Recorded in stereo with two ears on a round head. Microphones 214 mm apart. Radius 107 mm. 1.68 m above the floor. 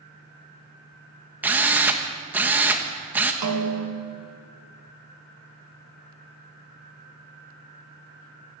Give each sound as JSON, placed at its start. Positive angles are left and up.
{"t": 1.4, "sound": "a drill", "side_deg": -5, "distance_m": 1.6}
{"t": 3.4, "sound": "a snare drum", "side_deg": -80, "distance_m": 2.5}